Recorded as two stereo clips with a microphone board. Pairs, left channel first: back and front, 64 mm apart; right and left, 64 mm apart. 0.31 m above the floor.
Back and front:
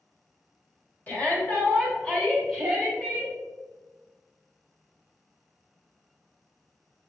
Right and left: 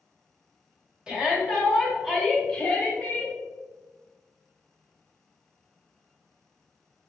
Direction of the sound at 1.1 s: 150° left.